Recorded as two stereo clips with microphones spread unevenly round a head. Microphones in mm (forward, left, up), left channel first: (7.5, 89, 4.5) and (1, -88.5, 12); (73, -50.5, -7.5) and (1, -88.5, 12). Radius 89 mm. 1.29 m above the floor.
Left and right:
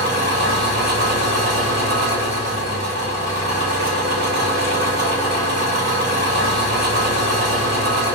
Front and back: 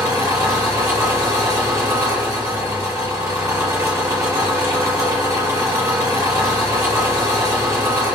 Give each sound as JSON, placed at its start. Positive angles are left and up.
{"t": 0.0, "sound": "an engine running", "azimuth_deg": -115, "distance_m": 1.7}